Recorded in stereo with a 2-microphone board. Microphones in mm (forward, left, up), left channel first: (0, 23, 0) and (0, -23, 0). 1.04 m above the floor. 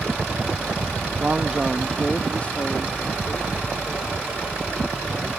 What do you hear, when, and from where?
1.2 s a man speaking: 35° right (ahead or behind); by 5.3 s 60° left (ahead or behind)